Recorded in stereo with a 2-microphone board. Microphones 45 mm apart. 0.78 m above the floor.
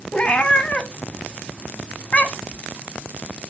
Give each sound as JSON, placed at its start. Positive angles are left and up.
{"t": 0.1, "sound": "a cat meowing", "side_deg": 30, "distance_m": 0.8}